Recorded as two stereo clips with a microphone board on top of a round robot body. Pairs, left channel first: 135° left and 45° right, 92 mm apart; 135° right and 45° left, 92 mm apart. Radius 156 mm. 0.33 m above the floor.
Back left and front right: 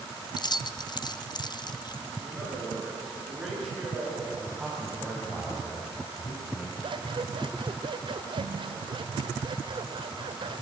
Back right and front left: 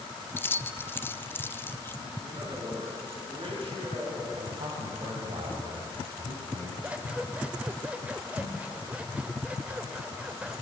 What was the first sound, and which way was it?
Keys jangling, 160° left.